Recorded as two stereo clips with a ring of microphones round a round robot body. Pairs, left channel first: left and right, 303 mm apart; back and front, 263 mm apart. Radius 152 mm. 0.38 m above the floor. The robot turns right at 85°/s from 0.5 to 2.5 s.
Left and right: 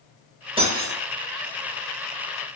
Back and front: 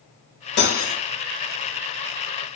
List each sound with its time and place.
0.6 s cutlery clinking: 155° right, 0.7 m; by 1.0 s 120° right, 0.7 m